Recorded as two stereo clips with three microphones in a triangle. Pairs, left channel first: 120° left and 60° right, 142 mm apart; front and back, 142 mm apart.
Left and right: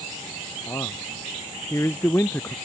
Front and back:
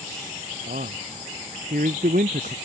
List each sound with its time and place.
0.7 s a man speaking: 170° right; by 2.5 s 165° right